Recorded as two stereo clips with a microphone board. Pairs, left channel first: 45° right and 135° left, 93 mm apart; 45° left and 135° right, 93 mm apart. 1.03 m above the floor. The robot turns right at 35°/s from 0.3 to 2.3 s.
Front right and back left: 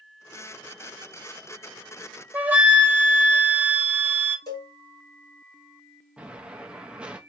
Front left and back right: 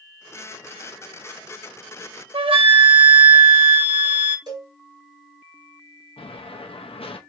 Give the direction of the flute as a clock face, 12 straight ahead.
5 o'clock.